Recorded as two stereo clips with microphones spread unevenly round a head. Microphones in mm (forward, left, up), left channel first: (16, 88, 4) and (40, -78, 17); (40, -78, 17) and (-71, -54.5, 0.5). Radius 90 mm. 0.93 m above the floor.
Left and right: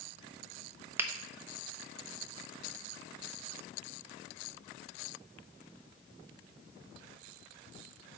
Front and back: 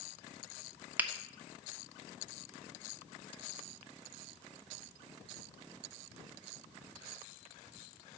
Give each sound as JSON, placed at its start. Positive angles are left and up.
{"t": 1.0, "sound": "a finger snap", "azimuth_deg": -155, "distance_m": 0.5}